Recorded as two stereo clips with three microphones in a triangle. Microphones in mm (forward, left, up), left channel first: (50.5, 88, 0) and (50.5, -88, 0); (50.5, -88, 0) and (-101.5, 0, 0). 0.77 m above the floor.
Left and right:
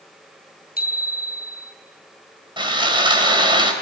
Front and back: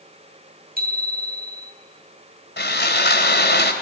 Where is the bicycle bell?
120° left, 5.5 m.